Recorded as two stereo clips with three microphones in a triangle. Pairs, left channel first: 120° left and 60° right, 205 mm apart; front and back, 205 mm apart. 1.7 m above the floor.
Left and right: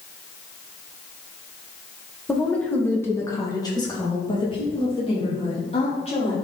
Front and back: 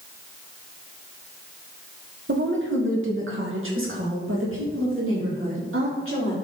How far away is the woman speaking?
About 1.6 m.